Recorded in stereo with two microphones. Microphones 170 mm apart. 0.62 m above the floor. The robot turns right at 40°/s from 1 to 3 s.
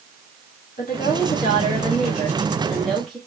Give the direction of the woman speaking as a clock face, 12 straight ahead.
9 o'clock.